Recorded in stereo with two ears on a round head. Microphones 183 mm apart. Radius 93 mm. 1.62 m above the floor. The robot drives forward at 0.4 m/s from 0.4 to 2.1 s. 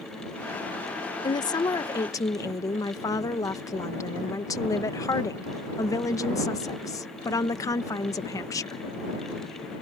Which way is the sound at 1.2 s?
20° left (ahead or behind).